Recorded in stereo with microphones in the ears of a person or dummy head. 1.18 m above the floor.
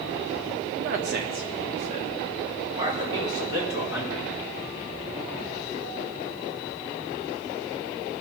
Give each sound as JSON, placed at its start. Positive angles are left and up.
{"t": 0.8, "sound": "a man speaking", "side_deg": -60, "distance_m": 1.0}